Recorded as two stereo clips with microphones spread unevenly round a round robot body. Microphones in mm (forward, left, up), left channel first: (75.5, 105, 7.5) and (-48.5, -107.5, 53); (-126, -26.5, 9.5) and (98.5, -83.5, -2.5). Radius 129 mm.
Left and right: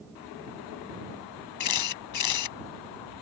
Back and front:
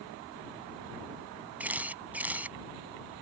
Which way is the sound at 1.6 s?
70° left.